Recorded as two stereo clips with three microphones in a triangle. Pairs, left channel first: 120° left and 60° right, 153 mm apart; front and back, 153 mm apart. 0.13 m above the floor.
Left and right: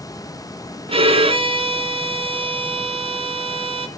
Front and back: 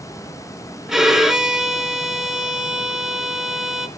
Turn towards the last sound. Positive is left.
turn(degrees=-95)